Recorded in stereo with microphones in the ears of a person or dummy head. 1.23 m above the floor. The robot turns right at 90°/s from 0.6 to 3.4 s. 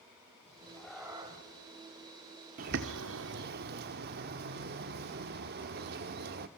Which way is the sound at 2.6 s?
135° right.